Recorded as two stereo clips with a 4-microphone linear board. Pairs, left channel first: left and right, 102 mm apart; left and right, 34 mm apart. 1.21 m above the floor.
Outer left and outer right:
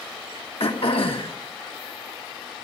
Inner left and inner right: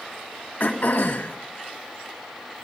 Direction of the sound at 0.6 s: 65° left (ahead or behind).